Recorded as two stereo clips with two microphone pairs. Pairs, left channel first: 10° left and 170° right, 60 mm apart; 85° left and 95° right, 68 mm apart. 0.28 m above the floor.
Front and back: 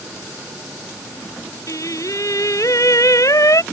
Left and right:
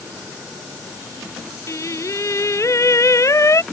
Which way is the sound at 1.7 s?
40° left.